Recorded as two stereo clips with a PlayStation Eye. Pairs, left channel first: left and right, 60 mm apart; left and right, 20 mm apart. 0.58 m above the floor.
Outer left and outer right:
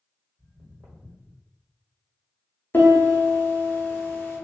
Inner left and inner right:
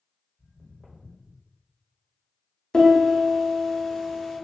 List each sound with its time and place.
0.4 s footsteps: 60° right (ahead or behind), 1.5 m; by 1.4 s 70° right (ahead or behind), 1.3 m
2.7 s a piano: 35° left (ahead or behind), 0.8 m